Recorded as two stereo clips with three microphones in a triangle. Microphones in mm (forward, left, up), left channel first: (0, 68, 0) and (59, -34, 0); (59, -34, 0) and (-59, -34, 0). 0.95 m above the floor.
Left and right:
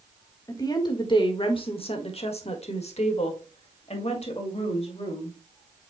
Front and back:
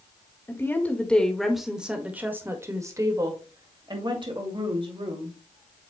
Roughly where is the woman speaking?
Ahead left.